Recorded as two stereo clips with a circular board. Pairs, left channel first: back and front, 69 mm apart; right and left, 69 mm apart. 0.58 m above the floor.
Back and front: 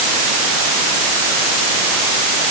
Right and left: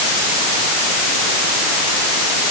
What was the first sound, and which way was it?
Only background noise.